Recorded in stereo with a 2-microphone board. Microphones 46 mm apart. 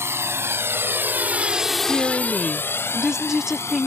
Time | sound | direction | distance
0.0 | a drone | 70° right (ahead or behind) | ?
1.9 | a woman speaking | 10° right (ahead or behind) | ?